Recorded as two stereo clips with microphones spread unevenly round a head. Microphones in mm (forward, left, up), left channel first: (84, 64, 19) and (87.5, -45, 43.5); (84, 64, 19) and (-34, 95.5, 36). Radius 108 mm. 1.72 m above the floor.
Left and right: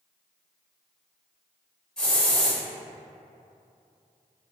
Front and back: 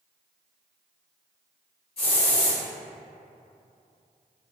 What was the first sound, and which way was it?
A hiss, 10° right.